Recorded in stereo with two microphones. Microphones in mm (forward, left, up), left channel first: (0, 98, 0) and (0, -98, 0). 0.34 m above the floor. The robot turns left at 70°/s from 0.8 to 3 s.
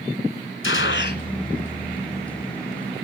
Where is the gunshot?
80° left, 0.9 m; by 1.2 s 50° left, 0.9 m.